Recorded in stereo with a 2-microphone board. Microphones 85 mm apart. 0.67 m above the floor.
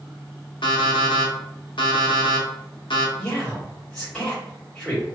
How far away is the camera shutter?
No camera shutter in this recording.